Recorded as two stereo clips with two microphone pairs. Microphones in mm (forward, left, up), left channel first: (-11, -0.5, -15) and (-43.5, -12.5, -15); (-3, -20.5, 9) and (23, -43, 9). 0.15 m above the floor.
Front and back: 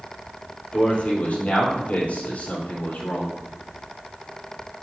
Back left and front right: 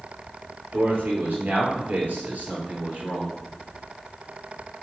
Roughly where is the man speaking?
Ahead right.